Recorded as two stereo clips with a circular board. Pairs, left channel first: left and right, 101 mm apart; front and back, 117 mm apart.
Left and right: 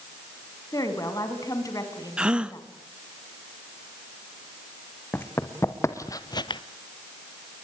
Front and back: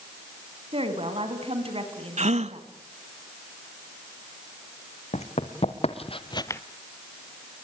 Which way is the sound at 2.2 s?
170° right.